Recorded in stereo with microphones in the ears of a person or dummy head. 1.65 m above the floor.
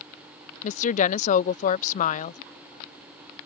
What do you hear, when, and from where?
0.6 s a woman speaking: 45° left (ahead or behind)